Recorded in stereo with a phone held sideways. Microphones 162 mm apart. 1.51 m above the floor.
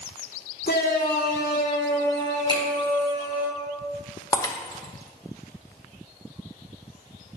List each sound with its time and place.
0.7 s a shout: 75° left (ahead or behind), 1.3 m; by 3.5 s 70° left (ahead or behind), 3 m
2.5 s a finger snap: 30° left (ahead or behind), 4 m
4.3 s breaking glass: 25° left (ahead or behind), 1.1 m